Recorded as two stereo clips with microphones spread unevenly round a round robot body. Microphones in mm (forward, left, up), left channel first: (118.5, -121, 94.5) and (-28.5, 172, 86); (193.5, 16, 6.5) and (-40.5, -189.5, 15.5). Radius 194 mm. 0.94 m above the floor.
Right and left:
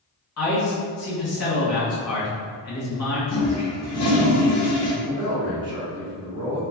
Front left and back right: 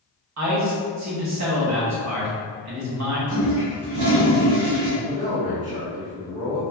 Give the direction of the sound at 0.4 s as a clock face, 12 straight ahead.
4 o'clock.